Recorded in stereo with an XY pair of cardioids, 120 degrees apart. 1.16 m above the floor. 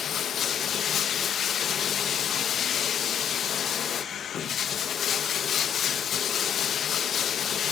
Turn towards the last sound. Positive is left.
turn(degrees=50)